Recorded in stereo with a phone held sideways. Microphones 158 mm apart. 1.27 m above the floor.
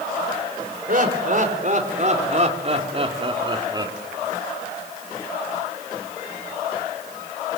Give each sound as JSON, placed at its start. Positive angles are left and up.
{"t": 0.9, "sound": "laughter", "side_deg": -60, "distance_m": 4.5}